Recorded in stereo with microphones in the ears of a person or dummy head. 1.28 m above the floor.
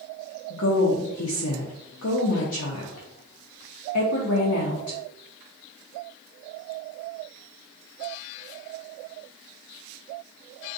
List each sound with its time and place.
0.5 s a woman speaking: 75° left (ahead or behind), 0.7 m